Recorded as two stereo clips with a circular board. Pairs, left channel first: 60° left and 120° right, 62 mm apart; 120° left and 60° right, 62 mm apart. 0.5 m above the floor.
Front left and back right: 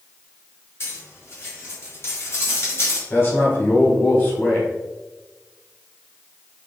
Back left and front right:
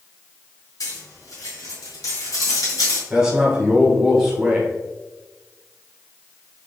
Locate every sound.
0.8 s cutlery clinking: 105° left, 1.6 m
3.1 s a man speaking: 20° left, 1.5 m